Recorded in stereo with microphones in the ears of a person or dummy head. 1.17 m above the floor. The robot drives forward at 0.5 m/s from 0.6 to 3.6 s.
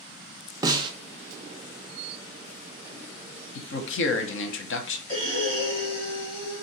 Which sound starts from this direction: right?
A snare drum, at 0.6 s.